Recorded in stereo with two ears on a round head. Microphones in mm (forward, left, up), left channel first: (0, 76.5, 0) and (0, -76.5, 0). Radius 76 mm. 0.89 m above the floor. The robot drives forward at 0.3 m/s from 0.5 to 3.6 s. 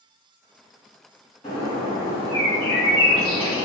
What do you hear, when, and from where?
1.4 s a bird: 40° left (ahead or behind), 1.8 m; by 3.6 s 30° left (ahead or behind), 2.5 m